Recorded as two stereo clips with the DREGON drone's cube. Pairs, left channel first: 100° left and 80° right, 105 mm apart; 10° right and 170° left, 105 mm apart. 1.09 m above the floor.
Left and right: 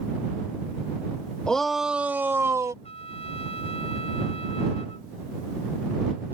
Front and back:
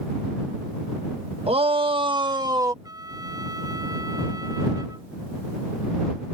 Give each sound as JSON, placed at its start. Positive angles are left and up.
{"t": 1.5, "sound": "a shout", "azimuth_deg": 180}
{"t": 2.8, "sound": "a trumpet", "azimuth_deg": 115}